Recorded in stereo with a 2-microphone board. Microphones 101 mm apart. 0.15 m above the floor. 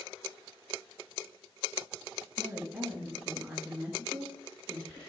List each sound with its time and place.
2.4 s a woman speaking: 10° right (ahead or behind), 1.5 m